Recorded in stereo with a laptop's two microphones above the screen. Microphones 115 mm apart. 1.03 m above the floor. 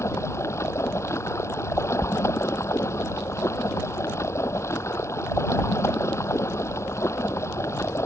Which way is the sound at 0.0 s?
25° left (ahead or behind).